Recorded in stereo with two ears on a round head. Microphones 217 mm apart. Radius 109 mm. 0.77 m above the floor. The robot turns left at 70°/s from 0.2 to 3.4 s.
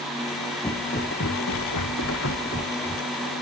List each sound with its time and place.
0.6 s footsteps: 15° left (ahead or behind); by 3.0 s 5° right (ahead or behind)